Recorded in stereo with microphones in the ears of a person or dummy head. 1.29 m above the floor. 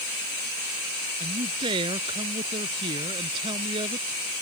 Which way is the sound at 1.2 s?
25° right (ahead or behind).